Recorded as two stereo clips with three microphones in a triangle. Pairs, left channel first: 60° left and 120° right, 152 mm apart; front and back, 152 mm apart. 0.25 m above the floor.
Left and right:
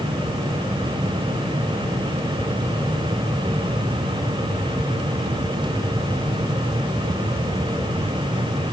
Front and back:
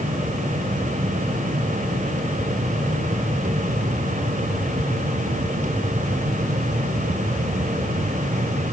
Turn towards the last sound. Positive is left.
No sound to turn to.